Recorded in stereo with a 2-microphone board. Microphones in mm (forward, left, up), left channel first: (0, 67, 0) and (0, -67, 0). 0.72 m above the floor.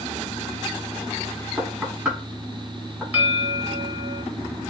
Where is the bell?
20° right (ahead or behind), 1.7 m.